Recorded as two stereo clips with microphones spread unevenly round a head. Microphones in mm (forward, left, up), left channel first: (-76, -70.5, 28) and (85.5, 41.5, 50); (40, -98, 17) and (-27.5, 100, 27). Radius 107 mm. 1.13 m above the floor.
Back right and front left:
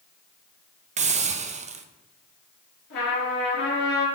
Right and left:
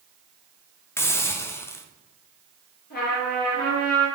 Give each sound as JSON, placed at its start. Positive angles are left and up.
{"t": 1.0, "sound": "a hiss", "azimuth_deg": -5, "distance_m": 0.7}
{"t": 2.9, "sound": "a trumpet", "azimuth_deg": -115, "distance_m": 4.0}